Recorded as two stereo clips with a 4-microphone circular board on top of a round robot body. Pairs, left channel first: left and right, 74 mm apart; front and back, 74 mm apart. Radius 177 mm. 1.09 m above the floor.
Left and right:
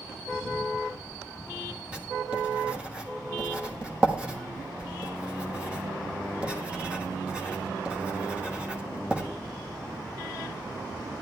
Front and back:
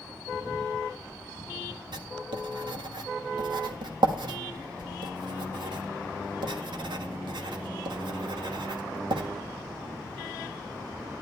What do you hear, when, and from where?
1.9 s writing: 165° right, 1.3 m